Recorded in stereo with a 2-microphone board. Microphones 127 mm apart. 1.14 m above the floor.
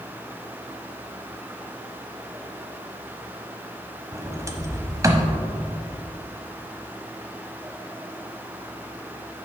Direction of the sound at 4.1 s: 25° right (ahead or behind).